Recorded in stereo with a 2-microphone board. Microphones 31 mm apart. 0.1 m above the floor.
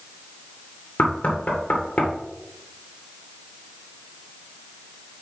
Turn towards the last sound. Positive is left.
turn(degrees=55)  # may be behind; listen again after turning